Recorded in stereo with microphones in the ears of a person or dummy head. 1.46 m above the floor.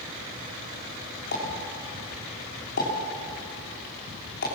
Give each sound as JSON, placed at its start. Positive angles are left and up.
{"t": 1.3, "sound": "a pop", "side_deg": 55, "distance_m": 4.5}